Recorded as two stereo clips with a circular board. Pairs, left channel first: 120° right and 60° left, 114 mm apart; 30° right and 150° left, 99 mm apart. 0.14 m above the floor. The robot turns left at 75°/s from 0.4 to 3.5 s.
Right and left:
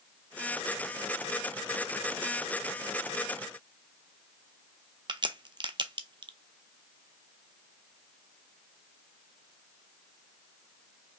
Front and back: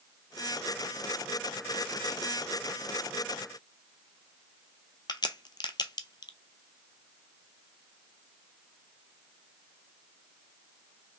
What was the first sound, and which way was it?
A crack, 15° left.